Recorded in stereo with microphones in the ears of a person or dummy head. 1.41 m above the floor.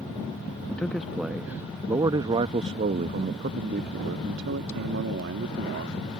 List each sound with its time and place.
0.7 s a man speaking: 5° left (ahead or behind); by 6.0 s 80° right